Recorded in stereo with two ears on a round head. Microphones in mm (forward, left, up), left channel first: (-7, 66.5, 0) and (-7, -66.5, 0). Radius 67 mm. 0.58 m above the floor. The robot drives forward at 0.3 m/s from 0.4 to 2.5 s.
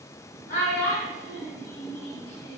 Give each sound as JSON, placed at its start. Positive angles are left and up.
{"t": 0.5, "sound": "a child speaking", "side_deg": 60, "distance_m": 2.5}